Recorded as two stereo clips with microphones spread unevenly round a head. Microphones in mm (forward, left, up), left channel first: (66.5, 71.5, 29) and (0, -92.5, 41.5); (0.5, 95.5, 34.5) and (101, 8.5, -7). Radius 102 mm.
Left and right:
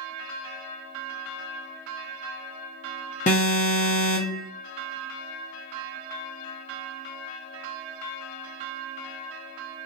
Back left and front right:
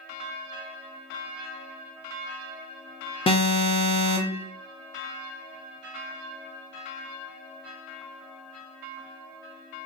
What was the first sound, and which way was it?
An alarm, 85° left.